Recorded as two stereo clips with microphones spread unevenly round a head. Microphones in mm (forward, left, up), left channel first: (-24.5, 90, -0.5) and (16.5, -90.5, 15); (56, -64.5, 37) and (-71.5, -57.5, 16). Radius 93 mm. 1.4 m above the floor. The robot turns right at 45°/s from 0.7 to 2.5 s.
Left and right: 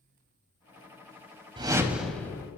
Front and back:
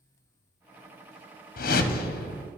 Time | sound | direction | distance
1.6 | a whoosh | 10° right | 0.6 m